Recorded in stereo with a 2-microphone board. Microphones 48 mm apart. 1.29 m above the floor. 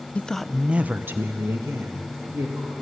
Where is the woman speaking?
25° left (ahead or behind), 0.7 m; by 2.7 s 75° right (ahead or behind), 2.5 m.